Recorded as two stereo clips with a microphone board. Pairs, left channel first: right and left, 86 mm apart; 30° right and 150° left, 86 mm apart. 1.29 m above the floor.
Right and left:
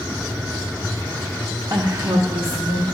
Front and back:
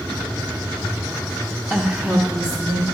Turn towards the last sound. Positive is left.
turn(degrees=95)